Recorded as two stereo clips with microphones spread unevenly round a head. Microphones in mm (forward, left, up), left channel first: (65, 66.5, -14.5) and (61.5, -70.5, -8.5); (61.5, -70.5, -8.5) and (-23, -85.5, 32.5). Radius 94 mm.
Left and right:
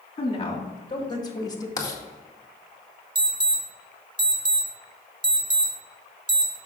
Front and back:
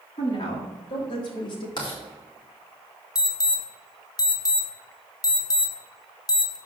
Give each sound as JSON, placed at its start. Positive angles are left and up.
{"t": 0.2, "sound": "a woman speaking", "azimuth_deg": 40, "distance_m": 2.5}
{"t": 1.8, "sound": "writing", "azimuth_deg": 30, "distance_m": 2.0}
{"t": 3.1, "sound": "an alarm", "azimuth_deg": -35, "distance_m": 2.0}